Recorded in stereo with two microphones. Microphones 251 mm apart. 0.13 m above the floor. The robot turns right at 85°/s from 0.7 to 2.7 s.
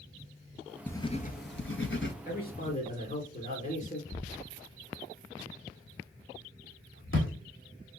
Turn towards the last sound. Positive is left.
turn(degrees=55)  # may be behind; listen again after turning